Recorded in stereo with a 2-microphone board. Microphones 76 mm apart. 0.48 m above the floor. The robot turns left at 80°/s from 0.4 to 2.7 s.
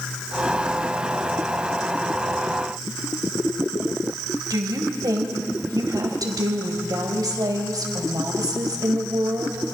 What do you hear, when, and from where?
4.5 s a woman speaking: 55° right (ahead or behind), 3 m